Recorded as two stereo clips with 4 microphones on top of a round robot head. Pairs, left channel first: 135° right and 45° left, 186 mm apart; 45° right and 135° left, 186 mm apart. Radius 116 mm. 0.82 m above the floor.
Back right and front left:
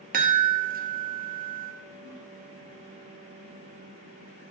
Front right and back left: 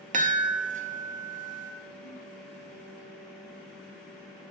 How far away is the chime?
About 0.8 m.